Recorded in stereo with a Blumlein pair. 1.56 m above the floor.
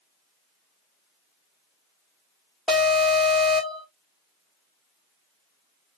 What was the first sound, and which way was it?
An alarm, 5° right.